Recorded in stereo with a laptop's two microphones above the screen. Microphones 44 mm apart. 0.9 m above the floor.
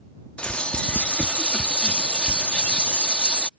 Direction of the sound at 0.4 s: 25° left (ahead or behind).